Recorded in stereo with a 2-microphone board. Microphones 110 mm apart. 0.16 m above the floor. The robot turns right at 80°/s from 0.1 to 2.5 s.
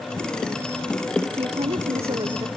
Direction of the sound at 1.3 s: 125° right.